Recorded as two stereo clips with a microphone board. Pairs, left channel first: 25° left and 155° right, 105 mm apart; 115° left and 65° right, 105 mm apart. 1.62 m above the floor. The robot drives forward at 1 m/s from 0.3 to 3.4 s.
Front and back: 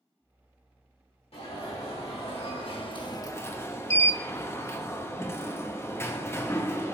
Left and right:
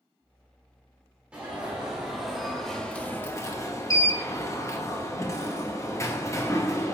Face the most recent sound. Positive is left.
turn(degrees=70)